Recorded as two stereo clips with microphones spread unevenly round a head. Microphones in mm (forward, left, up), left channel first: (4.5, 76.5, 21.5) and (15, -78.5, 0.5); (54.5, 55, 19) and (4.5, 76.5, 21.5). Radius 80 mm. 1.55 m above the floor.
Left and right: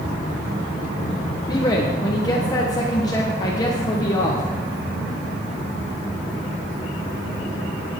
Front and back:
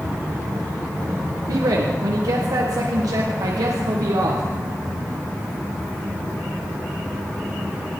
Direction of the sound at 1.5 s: 160° left.